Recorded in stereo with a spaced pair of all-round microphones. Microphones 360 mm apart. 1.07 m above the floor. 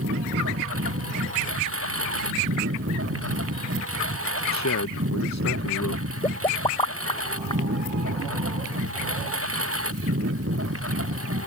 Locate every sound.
0.0 s a lawn mower: 40° right (ahead or behind)
4.5 s a man speaking: 50° left (ahead or behind)
6.2 s a pop: 15° left (ahead or behind)